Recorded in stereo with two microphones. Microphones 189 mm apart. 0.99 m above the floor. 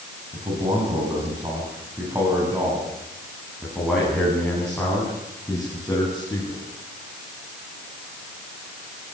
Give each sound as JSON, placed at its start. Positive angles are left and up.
{"t": 0.3, "sound": "a man speaking", "side_deg": -30, "distance_m": 7.5}